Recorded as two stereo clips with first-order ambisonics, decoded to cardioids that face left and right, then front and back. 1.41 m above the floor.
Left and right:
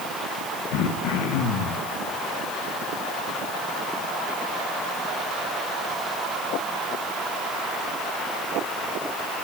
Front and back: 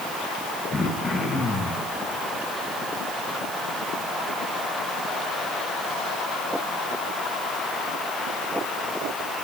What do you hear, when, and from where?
0.7 s throat clearing: 80° left, 1.5 m